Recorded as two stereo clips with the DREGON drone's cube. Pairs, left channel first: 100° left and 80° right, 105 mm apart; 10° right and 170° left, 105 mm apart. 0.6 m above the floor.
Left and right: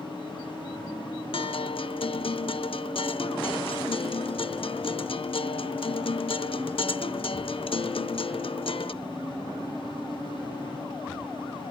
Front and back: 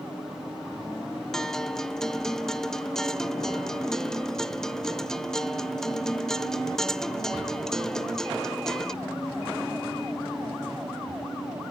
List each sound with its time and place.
1.3 s a guitar: 75° left, 0.5 m